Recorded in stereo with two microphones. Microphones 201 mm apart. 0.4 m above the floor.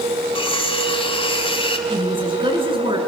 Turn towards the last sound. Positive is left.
turn(degrees=-25)  # may be behind; listen again after turning